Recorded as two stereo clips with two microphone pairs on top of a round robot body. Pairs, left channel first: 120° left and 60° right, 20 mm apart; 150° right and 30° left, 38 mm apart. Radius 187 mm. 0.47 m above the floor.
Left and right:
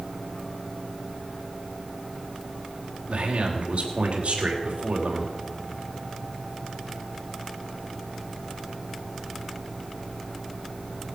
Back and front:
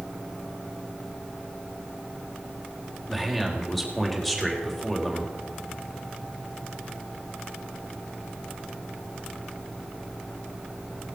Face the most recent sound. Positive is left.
turn(degrees=-65)